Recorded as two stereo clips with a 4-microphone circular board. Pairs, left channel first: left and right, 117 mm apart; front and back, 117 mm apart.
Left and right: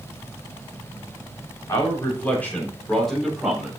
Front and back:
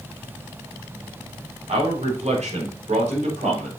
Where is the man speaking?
155° left, 3.5 m; by 3.7 s 175° right, 4 m.